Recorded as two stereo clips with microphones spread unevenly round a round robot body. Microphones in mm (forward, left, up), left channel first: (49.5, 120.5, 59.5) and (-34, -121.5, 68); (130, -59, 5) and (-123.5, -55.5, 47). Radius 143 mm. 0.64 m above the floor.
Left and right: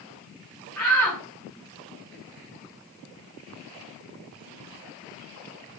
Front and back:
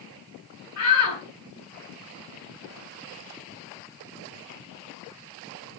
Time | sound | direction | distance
0.8 | a shout | 15° right | 7.5 m